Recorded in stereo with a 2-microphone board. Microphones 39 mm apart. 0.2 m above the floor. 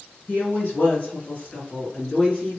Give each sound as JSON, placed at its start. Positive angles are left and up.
{"t": 0.3, "sound": "a woman speaking", "side_deg": 50, "distance_m": 2.5}